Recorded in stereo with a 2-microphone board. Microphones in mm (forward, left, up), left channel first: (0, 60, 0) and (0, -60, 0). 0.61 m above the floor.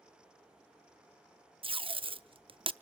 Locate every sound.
1.6 s tape being pulled: 50° right (ahead or behind), 0.5 m